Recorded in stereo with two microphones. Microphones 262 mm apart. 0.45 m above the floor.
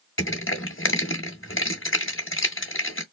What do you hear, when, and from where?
0.2 s crushing: 55° left (ahead or behind), 1.9 m